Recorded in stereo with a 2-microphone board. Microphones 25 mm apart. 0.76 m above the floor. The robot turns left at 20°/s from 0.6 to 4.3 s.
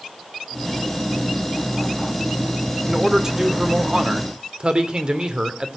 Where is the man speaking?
10° right (ahead or behind), 2.5 m; by 5.8 s 40° right (ahead or behind), 2.5 m.